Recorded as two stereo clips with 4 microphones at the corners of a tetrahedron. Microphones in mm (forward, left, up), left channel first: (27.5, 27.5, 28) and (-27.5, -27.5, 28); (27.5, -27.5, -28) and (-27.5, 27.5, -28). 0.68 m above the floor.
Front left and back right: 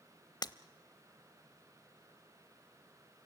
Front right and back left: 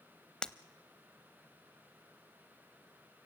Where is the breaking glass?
35° left, 0.7 m.